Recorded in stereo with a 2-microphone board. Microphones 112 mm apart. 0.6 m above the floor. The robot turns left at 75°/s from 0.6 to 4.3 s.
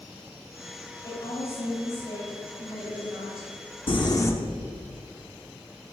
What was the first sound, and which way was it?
A woman speaking, 135° left.